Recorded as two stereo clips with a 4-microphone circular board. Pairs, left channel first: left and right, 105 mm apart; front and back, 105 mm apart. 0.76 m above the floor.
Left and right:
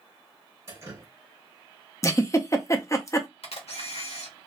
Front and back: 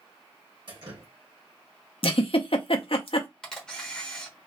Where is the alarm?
I don't hear an alarm.